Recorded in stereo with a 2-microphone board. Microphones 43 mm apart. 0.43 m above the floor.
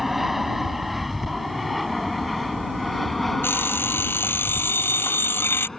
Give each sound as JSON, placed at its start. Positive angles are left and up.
{"t": 0.0, "sound": "an aircraft", "side_deg": -5}
{"t": 3.4, "sound": "an alarm clock", "side_deg": 60}